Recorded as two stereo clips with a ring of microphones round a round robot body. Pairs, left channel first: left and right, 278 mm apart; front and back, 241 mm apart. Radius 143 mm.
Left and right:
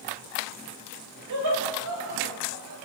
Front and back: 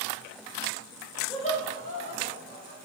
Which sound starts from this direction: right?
Laughter, at 1.3 s.